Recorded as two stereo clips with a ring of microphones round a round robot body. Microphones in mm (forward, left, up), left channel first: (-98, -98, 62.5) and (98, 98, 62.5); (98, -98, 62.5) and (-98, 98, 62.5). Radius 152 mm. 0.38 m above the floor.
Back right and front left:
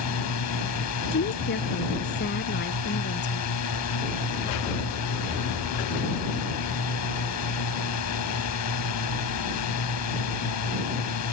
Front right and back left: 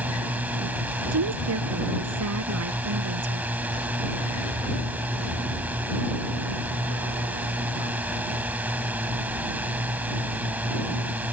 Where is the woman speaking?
170° left.